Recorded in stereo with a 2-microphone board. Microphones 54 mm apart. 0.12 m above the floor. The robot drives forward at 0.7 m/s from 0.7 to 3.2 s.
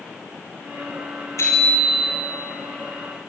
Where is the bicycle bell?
65° left (ahead or behind), 7 m; by 2.2 s 70° left (ahead or behind), 7 m.